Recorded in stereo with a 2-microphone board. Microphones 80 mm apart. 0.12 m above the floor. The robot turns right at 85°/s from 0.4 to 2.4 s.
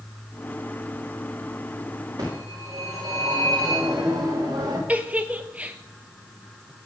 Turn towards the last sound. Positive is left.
turn(degrees=-20)  # may be behind; listen again after turning